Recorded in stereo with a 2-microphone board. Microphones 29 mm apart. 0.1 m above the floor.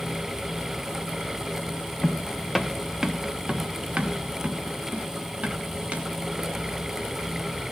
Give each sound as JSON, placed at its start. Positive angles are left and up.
{"t": 2.0, "sound": "footsteps", "side_deg": 25, "distance_m": 0.7}